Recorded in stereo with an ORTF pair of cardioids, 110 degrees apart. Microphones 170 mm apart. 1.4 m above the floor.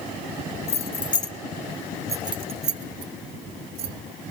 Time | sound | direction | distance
0.7 | keys jangling | 40° left | 0.9 m